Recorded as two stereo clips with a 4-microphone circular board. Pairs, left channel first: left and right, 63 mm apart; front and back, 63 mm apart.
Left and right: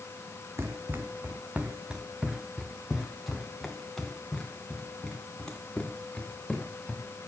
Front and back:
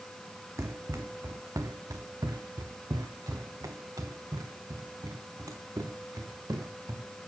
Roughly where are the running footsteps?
Behind right.